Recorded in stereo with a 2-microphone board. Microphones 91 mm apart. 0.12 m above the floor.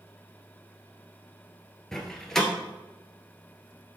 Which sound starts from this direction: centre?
A door slam, at 1.9 s.